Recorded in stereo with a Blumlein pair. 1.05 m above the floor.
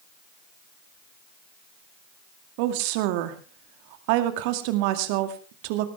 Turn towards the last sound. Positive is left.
turn(degrees=-45)